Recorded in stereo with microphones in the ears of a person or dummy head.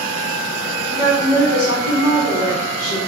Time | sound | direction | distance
0.9 | a woman speaking | 85° left | 1.0 m